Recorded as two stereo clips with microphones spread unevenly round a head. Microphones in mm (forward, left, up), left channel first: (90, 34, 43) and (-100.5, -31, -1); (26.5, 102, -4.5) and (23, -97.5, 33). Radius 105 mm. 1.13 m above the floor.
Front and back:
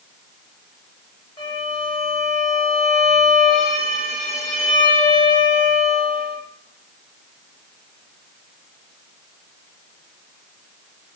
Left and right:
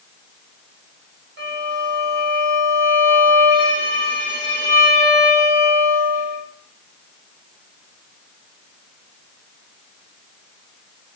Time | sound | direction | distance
1.4 | a violin | 50° right | 1.6 m